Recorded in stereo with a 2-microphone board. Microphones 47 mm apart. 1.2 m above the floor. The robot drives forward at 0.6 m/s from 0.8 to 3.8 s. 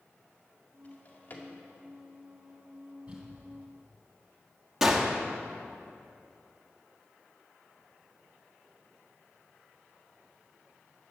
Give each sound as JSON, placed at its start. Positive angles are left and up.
{"t": 0.8, "sound": "a drawer", "side_deg": 40, "distance_m": 2.0}
{"t": 3.1, "sound": "crumpling", "side_deg": -25, "distance_m": 3.5}
{"t": 4.8, "sound": "a gunshot", "side_deg": -10, "distance_m": 1.3}